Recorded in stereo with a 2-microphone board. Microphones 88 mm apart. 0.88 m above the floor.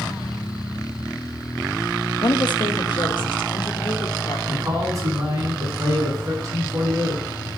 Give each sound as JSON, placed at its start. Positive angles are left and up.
{"t": 2.2, "sound": "a woman speaking", "side_deg": 55, "distance_m": 1.1}
{"t": 4.5, "sound": "a man speaking", "side_deg": -40, "distance_m": 7.0}